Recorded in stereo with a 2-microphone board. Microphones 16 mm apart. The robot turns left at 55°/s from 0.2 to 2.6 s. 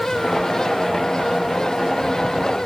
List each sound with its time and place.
Only background noise.